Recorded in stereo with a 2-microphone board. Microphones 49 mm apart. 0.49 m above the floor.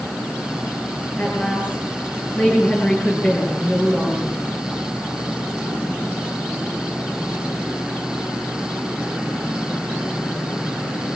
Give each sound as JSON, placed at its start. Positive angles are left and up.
{"t": 1.2, "sound": "a woman speaking", "side_deg": 30, "distance_m": 8.0}